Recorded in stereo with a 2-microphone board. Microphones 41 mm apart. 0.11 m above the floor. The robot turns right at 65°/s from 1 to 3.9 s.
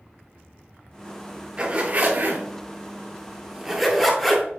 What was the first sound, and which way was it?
A zipper, 20° right (ahead or behind).